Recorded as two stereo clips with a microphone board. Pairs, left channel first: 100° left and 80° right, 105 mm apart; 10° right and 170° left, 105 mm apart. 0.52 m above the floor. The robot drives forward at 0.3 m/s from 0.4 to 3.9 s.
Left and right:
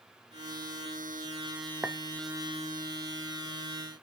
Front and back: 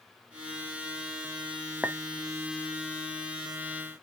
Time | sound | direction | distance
1.8 | a clink | 125° right | 0.5 m